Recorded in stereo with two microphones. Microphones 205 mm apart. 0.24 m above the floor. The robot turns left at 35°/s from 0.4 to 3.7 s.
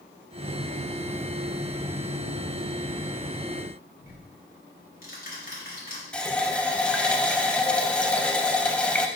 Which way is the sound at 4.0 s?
45° left (ahead or behind).